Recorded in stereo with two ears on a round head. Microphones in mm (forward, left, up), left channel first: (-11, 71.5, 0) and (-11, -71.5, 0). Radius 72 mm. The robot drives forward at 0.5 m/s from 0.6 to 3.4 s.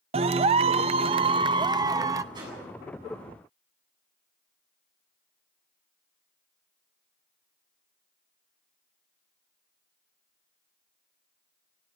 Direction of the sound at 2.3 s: 25° right (ahead or behind).